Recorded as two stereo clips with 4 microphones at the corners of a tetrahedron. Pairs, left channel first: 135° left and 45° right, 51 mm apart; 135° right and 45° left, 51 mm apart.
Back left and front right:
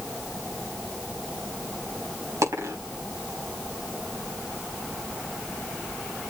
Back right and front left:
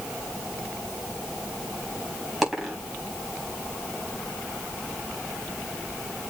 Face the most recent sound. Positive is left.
turn(degrees=-40)